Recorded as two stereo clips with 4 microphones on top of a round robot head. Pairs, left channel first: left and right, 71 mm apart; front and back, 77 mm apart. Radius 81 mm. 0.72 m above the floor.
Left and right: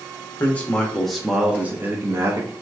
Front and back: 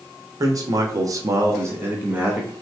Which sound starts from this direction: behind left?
A man speaking, at 0.4 s.